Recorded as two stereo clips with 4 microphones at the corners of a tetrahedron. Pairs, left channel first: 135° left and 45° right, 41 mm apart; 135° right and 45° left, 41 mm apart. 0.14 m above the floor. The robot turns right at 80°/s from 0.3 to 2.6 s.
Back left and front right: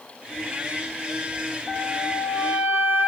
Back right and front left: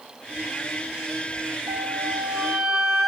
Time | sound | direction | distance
1.7 | a flute | 110° right | 0.8 m